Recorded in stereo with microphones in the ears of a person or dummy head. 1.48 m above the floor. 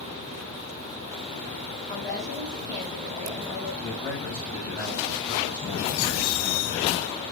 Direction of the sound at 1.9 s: 15° left (ahead or behind).